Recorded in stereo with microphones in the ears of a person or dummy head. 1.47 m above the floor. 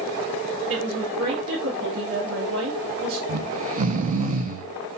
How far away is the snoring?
About 0.8 m.